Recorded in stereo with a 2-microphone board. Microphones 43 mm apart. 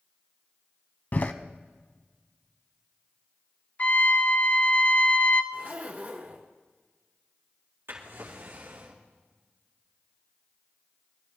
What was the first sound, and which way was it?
A door slam, 40° left (ahead or behind).